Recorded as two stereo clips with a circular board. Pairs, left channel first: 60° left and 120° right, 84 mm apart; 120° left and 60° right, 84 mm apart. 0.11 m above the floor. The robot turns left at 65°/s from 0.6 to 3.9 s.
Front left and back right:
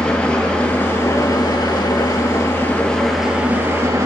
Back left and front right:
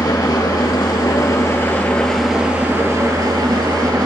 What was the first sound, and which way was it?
An engine running, 135° left.